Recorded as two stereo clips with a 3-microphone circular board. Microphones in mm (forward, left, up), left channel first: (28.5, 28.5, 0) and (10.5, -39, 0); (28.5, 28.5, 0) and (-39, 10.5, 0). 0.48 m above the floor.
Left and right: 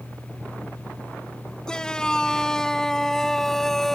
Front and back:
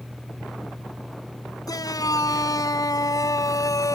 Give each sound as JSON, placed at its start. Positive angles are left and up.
{"t": 1.7, "sound": "a shout", "azimuth_deg": -5}